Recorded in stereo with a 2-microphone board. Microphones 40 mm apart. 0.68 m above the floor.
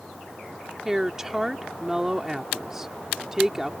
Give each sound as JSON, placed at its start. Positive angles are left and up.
{"t": 0.8, "sound": "a woman speaking", "side_deg": -15}